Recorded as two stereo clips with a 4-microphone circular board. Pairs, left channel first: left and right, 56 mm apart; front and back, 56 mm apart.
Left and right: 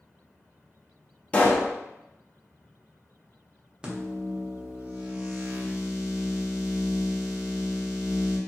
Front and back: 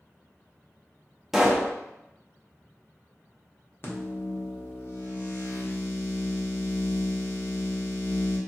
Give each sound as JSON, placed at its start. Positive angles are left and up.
{"t": 1.3, "sound": "a pop", "azimuth_deg": 100, "distance_m": 0.6}
{"t": 3.8, "sound": "a microwave", "azimuth_deg": -25, "distance_m": 0.7}